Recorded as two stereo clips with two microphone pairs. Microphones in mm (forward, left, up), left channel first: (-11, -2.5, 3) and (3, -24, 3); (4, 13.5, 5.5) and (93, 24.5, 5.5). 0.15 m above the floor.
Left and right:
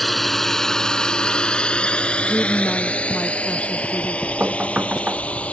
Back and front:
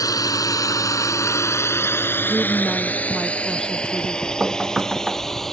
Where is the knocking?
80° right.